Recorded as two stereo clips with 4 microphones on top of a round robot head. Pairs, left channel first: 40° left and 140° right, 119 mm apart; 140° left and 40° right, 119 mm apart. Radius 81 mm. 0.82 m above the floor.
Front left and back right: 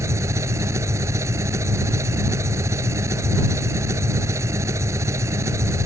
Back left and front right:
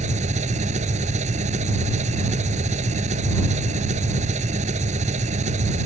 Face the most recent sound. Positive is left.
turn(degrees=-70)